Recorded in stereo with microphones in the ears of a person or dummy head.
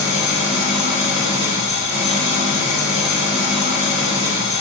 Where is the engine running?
35° left (ahead or behind), 1.4 m.